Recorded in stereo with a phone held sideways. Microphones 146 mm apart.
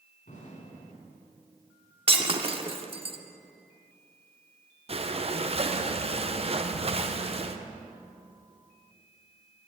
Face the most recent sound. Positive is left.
turn(degrees=-45)  # may be behind; listen again after turning